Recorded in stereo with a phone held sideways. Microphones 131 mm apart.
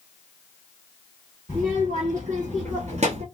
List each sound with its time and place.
1.5 s a child speaking: 75° right (ahead or behind), 1.3 m; by 3.2 s 50° right (ahead or behind), 0.5 m